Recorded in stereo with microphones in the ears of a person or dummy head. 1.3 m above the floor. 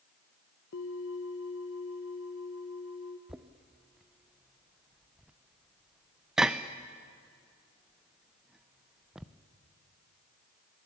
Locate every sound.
0.7 s a bell: 80° left, 1.3 m
3.3 s knocking: 5° right (ahead or behind), 0.6 m